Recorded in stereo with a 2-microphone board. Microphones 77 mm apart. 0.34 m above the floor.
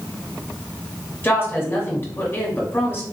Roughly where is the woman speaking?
Left.